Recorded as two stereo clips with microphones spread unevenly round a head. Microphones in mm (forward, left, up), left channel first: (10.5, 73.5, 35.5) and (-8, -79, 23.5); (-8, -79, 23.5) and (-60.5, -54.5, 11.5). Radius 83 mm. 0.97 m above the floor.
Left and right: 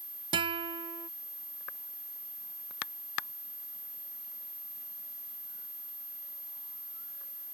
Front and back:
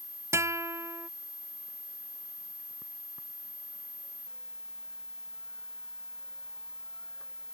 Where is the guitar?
160° right.